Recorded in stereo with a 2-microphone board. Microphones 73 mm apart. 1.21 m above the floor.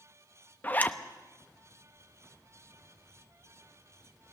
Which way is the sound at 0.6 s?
25° left (ahead or behind).